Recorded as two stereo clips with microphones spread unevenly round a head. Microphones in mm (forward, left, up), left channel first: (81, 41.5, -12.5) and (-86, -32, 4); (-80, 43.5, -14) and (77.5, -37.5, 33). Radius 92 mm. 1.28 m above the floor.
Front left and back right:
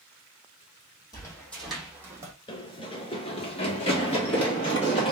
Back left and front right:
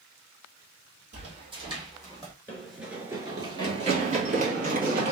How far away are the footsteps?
About 1.9 m.